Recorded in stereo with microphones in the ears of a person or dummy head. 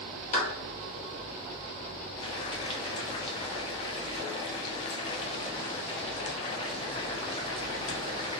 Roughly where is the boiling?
Left.